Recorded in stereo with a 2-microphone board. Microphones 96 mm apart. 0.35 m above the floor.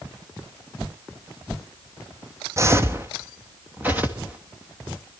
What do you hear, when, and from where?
2.6 s footsteps: 30° right (ahead or behind), 0.7 m; by 4.4 s 15° right (ahead or behind), 2.5 m